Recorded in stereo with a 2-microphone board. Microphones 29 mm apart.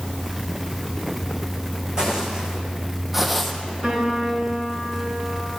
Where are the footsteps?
30° right (ahead or behind), 1.6 m; by 3.5 s centre (ahead or behind), 0.7 m.